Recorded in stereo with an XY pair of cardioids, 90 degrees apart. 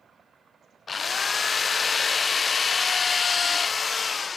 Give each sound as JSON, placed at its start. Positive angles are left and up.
{"t": 0.9, "sound": "a drill", "azimuth_deg": 40, "distance_m": 0.6}